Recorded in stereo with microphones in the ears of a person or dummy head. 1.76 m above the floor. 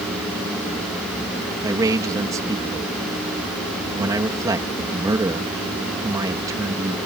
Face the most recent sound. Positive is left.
turn(degrees=-20)  # may be behind; listen again after turning